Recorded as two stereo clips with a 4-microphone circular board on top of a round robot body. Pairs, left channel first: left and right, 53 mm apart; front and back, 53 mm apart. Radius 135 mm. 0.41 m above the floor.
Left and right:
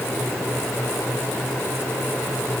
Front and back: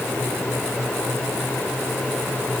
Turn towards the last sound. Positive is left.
No sound to turn to.